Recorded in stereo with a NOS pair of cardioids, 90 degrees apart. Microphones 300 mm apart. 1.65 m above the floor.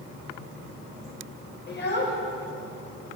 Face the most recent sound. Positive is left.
turn(degrees=40)